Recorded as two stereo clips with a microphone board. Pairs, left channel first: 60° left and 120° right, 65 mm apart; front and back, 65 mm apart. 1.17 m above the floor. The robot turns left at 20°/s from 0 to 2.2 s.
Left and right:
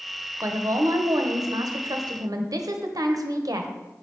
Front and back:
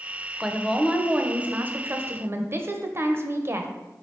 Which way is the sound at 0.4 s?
95° right.